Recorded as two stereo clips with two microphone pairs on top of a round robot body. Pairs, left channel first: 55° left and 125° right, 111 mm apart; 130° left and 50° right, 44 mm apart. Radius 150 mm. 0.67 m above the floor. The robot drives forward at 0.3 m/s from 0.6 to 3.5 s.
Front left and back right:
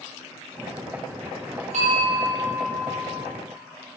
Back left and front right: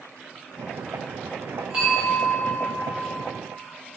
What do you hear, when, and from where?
1.7 s a bell: 110° right, 0.6 m; by 3.0 s 140° right, 0.8 m